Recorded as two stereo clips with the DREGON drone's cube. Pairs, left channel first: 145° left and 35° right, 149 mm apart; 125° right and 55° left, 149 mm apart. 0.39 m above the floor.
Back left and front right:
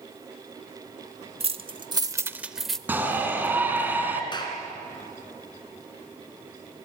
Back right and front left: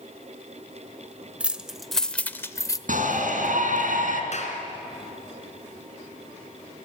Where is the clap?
155° right, 3 m.